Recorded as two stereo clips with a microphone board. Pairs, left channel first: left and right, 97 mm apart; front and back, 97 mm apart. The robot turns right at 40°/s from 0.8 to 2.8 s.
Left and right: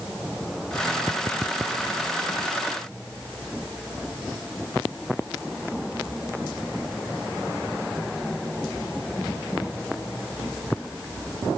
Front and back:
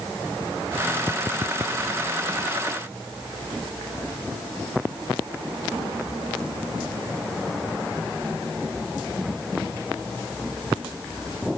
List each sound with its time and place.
Only background noise.